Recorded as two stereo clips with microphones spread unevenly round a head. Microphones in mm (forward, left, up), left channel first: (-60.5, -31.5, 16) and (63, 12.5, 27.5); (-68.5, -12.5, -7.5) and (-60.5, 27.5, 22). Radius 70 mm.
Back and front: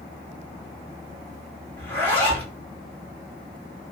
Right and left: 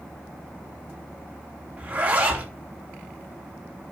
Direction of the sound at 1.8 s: 120° left.